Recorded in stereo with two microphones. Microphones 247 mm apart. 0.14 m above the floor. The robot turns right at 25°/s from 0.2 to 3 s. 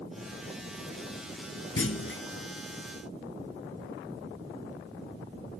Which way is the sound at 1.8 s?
60° left (ahead or behind).